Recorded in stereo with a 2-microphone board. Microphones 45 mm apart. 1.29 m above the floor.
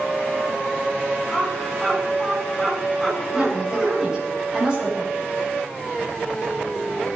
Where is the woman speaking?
20° right (ahead or behind), 5.5 m.